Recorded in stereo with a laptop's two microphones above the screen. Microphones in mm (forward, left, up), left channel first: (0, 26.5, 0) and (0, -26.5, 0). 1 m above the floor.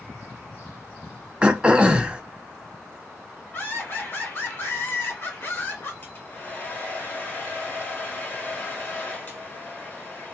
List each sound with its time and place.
1.4 s throat clearing: 20° right (ahead or behind), 0.5 m
3.5 s laughter: 40° left (ahead or behind), 1.1 m
6.0 s a hair dryer: 35° left (ahead or behind), 1.2 m